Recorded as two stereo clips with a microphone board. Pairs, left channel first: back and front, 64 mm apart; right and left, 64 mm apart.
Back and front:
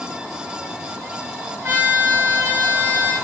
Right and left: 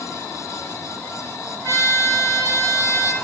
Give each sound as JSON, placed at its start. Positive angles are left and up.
{"t": 1.6, "sound": "a trumpet", "azimuth_deg": -55, "distance_m": 6.0}